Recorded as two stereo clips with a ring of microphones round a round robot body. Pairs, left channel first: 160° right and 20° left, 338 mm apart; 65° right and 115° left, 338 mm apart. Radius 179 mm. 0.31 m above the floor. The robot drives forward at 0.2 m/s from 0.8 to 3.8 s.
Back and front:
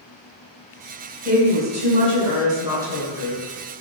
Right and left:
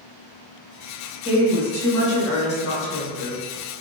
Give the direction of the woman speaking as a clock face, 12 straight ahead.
1 o'clock.